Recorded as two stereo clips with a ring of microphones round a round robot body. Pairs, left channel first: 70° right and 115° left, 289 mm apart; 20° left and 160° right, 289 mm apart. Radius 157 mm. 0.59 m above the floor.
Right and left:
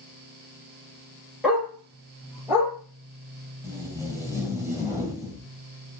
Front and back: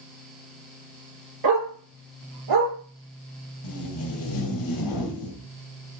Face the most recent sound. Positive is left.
turn(degrees=30)